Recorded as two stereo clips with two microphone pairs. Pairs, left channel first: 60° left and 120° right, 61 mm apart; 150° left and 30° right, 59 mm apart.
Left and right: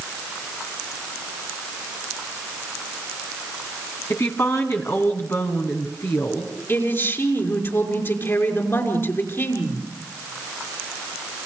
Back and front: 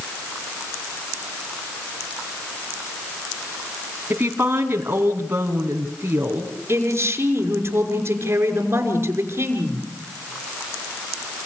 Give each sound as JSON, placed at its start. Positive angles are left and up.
{"t": 4.1, "sound": "a woman speaking", "azimuth_deg": 20, "distance_m": 3.5}
{"t": 6.7, "sound": "a man speaking", "azimuth_deg": 15, "distance_m": 5.5}